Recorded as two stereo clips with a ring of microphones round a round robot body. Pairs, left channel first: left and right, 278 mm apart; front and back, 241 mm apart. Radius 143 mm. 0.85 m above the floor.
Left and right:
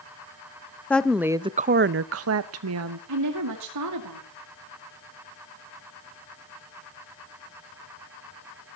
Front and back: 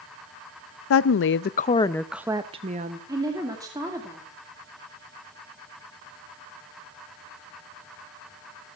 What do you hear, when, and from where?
0.9 s a woman speaking: 5° left, 0.7 m; by 3.0 s 125° right, 1.0 m
3.1 s a woman speaking: 105° right, 2 m